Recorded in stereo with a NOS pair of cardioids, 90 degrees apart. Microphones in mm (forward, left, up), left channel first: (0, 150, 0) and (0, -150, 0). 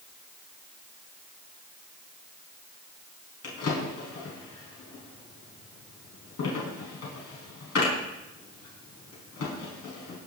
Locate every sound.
3.4 s a drawer: 50° left, 4.5 m